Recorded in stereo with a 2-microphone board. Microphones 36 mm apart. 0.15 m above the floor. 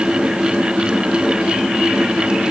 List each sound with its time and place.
Only background noise.